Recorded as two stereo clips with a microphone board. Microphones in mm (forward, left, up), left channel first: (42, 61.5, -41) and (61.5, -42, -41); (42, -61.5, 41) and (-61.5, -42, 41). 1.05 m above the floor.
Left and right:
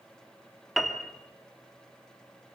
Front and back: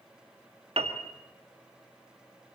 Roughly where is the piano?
Behind.